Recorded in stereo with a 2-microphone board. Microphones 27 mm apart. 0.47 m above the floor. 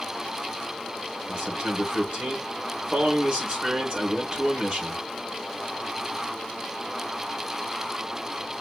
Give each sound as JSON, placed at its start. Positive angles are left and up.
{"t": 1.3, "sound": "a man speaking", "side_deg": -40, "distance_m": 3.5}